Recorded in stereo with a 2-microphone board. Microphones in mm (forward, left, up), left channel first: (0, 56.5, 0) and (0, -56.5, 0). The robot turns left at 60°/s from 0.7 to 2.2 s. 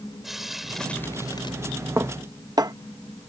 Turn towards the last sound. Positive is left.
turn(degrees=-35)  # may be behind; listen again after turning